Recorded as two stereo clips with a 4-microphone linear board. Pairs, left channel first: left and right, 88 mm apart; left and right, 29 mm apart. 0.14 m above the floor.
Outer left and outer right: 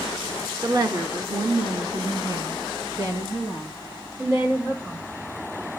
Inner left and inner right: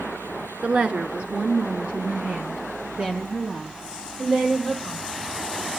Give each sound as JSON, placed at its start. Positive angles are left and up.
{"t": 0.6, "sound": "a woman speaking", "side_deg": -45, "distance_m": 1.8}